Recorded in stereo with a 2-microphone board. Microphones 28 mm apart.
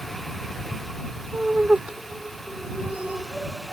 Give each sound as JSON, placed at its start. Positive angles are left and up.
{"t": 1.3, "sound": "laughter", "side_deg": -40}